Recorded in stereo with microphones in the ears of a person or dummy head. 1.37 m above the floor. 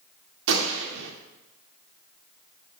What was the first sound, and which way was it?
A gunshot, 65° right (ahead or behind).